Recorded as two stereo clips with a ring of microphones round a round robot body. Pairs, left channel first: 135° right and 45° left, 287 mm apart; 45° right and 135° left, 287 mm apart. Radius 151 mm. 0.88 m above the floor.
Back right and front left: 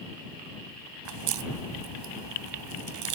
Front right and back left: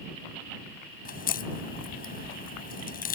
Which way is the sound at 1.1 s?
15° left.